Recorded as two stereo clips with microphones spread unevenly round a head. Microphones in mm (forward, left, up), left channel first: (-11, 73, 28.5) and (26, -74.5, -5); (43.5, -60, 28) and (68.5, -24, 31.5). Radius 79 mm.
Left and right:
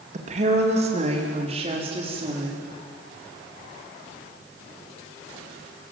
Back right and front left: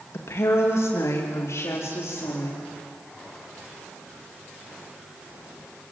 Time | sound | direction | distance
0.1 | a woman speaking | 120° right | 2.5 m